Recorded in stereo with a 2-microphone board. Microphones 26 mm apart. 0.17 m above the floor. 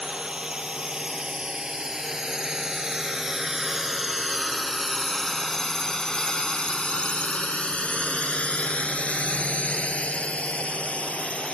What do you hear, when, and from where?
0.0 s a drone: 30° right (ahead or behind); by 11.6 s 55° left (ahead or behind)